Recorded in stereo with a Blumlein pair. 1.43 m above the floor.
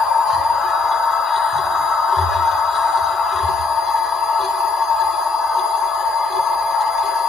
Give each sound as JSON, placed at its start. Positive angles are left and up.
{"t": 0.0, "sound": "a machine running", "azimuth_deg": 20, "distance_m": 1.9}